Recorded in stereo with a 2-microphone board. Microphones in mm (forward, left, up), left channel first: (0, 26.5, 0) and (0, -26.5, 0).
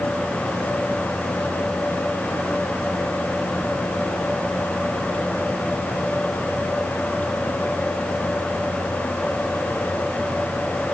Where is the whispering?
No whispering in this recording.